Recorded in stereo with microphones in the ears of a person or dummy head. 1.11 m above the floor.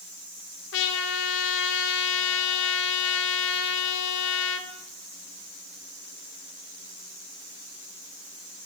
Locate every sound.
0.7 s a trumpet: 55° left (ahead or behind), 1.3 m